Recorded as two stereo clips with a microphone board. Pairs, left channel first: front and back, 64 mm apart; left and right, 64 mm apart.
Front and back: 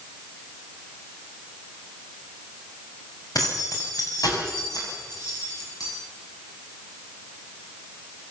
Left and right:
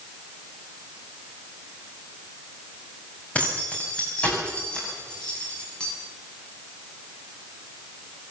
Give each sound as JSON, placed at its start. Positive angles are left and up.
{"t": 3.4, "sound": "keys jangling", "azimuth_deg": 20, "distance_m": 7.0}